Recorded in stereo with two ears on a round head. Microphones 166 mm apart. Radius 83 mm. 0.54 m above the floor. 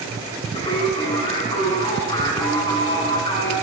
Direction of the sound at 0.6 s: 20° left (ahead or behind).